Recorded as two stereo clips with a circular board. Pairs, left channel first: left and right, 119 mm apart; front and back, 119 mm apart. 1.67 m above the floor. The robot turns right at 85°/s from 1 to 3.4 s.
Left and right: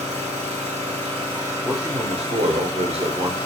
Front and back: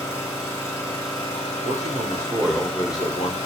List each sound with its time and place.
0.0 s an engine running: 65° right, 1.2 m; by 3.5 s 135° left, 1.2 m
1.6 s a man speaking: 165° right, 0.7 m; by 3.4 s 20° right, 0.7 m